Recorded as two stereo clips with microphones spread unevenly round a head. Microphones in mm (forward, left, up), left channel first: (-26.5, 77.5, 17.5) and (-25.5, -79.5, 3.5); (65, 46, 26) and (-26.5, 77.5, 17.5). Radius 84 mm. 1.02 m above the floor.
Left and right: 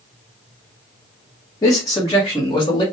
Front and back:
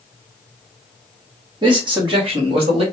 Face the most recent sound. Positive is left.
turn(degrees=160)